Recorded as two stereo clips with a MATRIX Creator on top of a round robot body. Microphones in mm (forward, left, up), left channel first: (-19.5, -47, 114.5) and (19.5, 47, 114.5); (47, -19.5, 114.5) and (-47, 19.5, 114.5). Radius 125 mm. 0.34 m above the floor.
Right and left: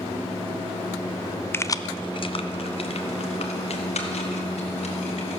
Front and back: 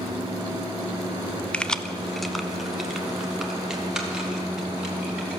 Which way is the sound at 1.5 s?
85° right.